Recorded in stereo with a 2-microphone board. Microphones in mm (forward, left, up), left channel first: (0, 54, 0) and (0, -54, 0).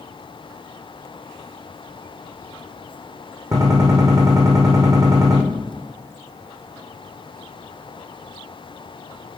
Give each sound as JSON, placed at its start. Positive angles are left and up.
{"t": 3.5, "sound": "a gunshot", "side_deg": -35, "distance_m": 5.0}